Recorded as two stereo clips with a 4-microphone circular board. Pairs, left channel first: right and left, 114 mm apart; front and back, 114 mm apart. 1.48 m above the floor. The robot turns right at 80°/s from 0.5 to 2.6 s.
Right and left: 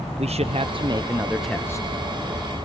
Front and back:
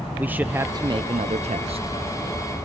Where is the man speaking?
105° left, 0.9 m; by 1.9 s 145° right, 0.9 m.